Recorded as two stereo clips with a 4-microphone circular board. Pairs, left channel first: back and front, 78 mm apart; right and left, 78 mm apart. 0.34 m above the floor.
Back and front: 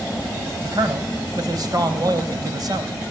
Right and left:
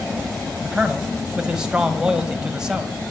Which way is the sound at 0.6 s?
10° left.